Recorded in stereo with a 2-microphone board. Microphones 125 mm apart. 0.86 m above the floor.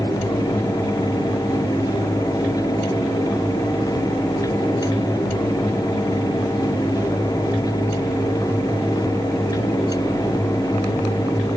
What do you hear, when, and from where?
Only background noise.